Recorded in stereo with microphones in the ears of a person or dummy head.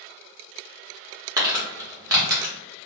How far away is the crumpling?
About 0.8 m.